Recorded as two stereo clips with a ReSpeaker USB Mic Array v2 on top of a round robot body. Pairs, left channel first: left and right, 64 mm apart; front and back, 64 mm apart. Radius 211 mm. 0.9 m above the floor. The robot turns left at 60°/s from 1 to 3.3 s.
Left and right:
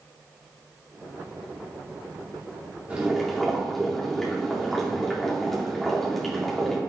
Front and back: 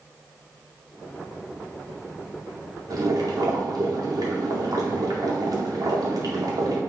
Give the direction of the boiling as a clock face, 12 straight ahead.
5 o'clock.